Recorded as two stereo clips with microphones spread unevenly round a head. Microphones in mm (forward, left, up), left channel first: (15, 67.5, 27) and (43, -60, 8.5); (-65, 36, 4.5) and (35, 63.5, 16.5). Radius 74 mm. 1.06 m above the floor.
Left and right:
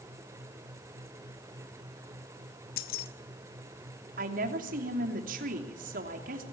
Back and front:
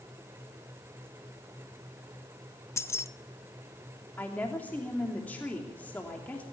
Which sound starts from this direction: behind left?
Keys jangling, at 2.8 s.